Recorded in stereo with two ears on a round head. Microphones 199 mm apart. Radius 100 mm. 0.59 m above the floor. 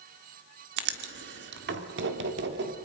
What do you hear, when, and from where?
0.8 s writing: 55° right (ahead or behind), 1.6 m